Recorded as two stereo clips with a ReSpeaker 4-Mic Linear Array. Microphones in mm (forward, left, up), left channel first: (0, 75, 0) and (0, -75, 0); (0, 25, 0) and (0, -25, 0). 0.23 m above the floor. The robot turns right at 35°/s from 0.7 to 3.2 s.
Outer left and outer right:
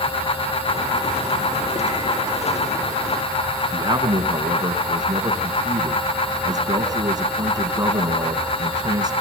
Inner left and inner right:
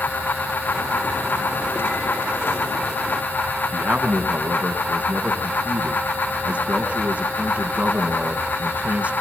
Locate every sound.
3.7 s a man speaking: 25° right (ahead or behind), 2 m